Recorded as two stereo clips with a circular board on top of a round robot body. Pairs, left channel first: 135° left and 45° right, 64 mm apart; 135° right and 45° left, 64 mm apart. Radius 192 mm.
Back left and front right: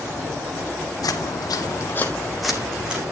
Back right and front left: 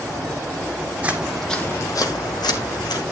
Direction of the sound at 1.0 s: 115° left.